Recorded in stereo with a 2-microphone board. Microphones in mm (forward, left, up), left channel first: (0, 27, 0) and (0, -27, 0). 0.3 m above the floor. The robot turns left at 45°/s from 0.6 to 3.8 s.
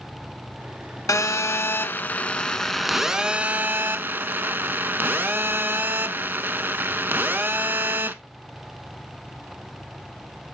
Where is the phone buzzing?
80° left, 0.5 m; by 8.1 s 40° right, 0.5 m.